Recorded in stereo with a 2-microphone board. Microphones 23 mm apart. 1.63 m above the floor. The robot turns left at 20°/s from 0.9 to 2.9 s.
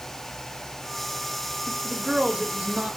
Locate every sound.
1.7 s a woman speaking: 35° right (ahead or behind), 1.3 m; by 3.0 s 60° right (ahead or behind), 1.3 m